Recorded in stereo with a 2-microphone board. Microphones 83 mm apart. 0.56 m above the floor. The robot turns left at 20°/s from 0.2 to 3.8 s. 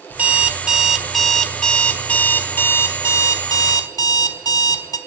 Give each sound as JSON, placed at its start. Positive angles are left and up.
{"t": 0.1, "sound": "an alarm clock", "azimuth_deg": -160, "distance_m": 1.4}